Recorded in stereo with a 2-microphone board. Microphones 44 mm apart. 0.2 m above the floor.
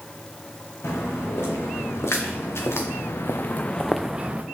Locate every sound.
0.8 s footsteps: 85° left, 3 m; by 4.4 s 30° right (ahead or behind), 0.8 m